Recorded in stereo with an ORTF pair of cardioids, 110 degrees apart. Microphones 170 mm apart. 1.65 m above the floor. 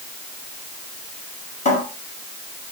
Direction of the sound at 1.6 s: 45° left.